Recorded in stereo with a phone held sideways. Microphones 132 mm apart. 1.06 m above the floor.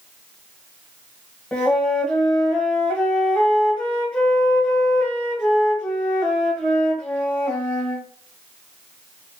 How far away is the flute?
About 1.0 m.